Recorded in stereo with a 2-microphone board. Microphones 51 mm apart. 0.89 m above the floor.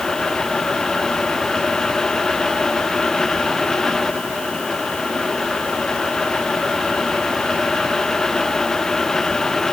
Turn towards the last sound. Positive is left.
No sound to turn to.